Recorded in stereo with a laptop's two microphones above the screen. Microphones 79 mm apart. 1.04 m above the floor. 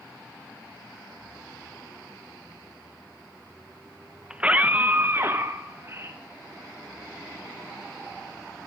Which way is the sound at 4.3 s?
10° right (ahead or behind).